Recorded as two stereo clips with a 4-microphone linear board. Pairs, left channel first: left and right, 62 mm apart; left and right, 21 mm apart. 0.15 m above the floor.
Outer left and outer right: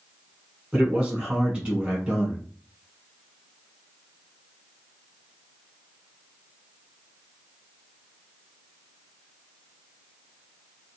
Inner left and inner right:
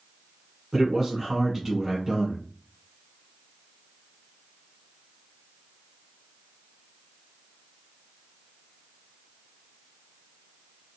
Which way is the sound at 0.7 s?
20° right (ahead or behind).